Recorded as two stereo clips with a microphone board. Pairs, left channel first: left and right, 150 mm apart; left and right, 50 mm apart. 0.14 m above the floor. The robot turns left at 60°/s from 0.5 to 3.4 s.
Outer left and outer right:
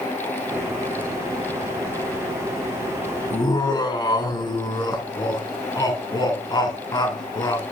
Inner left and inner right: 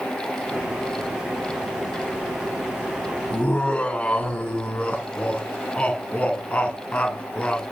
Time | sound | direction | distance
3.3 | laughter | 30° left (ahead or behind) | 1.2 m